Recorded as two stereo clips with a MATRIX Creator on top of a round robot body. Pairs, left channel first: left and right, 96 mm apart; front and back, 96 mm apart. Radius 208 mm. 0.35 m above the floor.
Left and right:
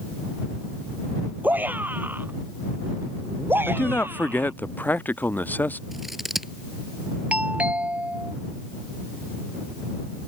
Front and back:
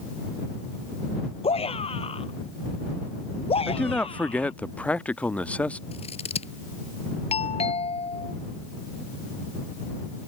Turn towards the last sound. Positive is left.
turn(degrees=-15)